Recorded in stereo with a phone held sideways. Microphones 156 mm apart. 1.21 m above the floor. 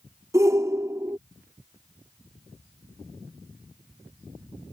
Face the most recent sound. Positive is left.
turn(degrees=-20)  # may be behind; listen again after turning